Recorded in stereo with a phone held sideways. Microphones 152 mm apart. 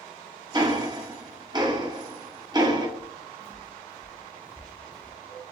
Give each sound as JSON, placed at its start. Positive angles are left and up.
{"t": 0.5, "sound": "ticking", "side_deg": -30, "distance_m": 0.8}
{"t": 3.0, "sound": "footsteps", "side_deg": -20, "distance_m": 1.0}